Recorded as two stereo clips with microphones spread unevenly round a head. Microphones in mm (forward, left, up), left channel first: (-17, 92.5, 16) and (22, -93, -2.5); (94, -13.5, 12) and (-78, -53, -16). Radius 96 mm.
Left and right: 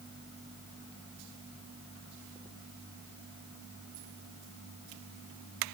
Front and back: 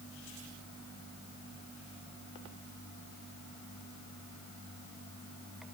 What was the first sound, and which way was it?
Only background noise.